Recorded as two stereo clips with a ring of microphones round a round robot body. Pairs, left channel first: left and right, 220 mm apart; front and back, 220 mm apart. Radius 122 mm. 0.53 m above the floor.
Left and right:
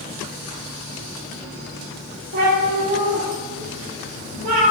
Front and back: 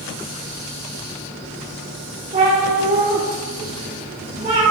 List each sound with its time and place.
2.3 s a cat meowing: 120° right, 4.5 m